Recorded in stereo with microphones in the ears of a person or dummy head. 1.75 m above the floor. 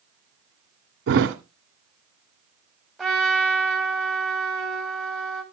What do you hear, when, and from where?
1.1 s a thud: 65° right (ahead or behind), 2.5 m
3.0 s a trumpet: centre (ahead or behind), 2 m